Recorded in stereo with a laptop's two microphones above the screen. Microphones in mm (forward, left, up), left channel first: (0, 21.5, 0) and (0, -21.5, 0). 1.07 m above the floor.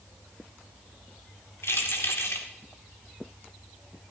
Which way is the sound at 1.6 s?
80° left.